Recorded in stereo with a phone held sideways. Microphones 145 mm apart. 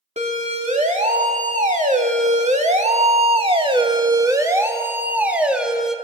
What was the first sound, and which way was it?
A siren, 55° right (ahead or behind).